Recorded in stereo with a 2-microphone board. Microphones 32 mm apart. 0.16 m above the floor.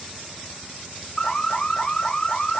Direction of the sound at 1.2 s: 25° left (ahead or behind).